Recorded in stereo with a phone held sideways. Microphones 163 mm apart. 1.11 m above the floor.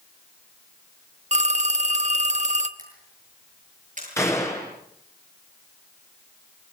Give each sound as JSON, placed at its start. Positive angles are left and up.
{"t": 1.3, "sound": "a phone ringing", "side_deg": -45, "distance_m": 1.1}
{"t": 2.8, "sound": "a camera shutter", "side_deg": -50, "distance_m": 8.5}
{"t": 4.2, "sound": "a gunshot", "side_deg": 15, "distance_m": 4.0}